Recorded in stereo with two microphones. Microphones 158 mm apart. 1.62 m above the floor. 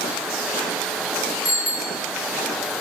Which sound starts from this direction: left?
A bicycle bell, at 1.4 s.